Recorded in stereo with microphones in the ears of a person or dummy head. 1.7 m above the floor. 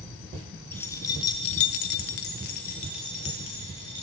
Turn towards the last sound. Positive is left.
turn(degrees=25)  # may be behind; listen again after turning